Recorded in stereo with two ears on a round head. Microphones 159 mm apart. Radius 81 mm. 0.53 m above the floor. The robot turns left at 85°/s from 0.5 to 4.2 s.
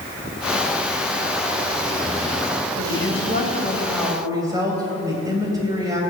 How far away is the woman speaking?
About 3.5 m.